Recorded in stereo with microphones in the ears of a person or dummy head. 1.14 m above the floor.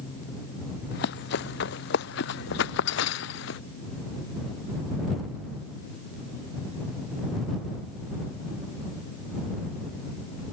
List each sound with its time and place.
0.9 s running footsteps: 70° left (ahead or behind); by 3.6 s 80° left